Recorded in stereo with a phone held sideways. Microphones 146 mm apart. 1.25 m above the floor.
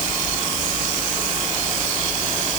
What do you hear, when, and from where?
Only background noise.